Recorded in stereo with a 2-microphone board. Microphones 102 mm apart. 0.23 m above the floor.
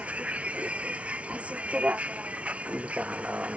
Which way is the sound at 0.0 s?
15° right (ahead or behind).